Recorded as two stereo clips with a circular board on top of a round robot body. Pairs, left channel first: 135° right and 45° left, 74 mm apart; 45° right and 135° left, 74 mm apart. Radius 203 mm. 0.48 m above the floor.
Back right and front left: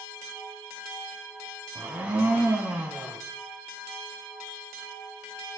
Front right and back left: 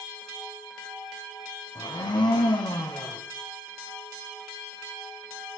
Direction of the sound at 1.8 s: 25° right.